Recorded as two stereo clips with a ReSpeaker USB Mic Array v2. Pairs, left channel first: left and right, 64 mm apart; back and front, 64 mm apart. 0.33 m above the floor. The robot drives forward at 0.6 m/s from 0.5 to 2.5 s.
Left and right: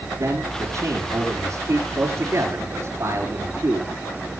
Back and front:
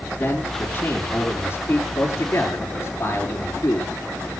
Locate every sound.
0.2 s a man speaking: 125° right, 5.5 m; by 3.9 s 135° right, 6 m